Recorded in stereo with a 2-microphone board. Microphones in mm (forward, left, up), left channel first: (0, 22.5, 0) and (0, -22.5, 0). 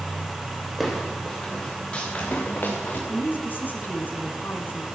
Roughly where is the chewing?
I don't hear chewing.